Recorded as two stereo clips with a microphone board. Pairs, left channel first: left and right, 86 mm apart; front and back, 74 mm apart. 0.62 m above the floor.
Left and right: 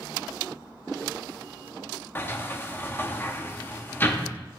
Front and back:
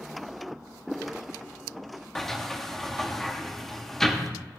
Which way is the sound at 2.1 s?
80° left.